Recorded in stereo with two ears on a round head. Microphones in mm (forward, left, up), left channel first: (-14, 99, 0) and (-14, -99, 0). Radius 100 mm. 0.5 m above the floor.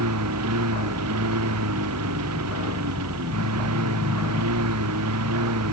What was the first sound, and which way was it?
A lawn mower, 85° right.